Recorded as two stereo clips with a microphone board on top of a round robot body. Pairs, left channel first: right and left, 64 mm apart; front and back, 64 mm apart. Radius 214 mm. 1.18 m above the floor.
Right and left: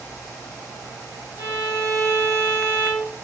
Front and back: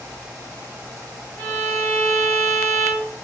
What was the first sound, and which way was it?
A violin, 95° right.